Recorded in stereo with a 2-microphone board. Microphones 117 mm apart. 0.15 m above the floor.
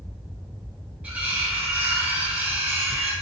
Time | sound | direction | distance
1.0 | cutlery clinking | 15° right (ahead or behind) | 0.9 m